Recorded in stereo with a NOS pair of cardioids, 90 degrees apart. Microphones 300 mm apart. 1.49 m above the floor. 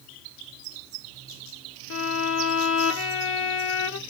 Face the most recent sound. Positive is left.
turn(degrees=45)